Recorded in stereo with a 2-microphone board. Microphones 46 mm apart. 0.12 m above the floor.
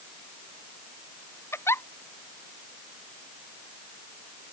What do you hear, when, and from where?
1.5 s a giggle: 70° left (ahead or behind)